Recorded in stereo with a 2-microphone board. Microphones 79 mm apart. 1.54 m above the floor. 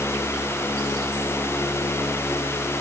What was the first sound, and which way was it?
Only background noise.